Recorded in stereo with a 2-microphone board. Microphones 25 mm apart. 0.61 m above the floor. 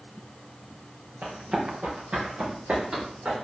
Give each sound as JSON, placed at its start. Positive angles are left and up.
{"t": 1.2, "sound": "running footsteps", "side_deg": -65, "distance_m": 4.5}